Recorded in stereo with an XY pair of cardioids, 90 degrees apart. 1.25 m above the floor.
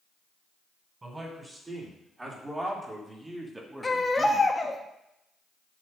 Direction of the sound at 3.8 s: 25° left.